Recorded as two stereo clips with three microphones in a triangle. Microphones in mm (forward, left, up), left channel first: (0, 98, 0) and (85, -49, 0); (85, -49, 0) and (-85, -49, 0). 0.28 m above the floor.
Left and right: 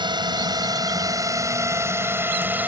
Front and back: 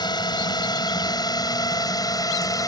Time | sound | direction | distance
0.0 | a drone | 30° right | ?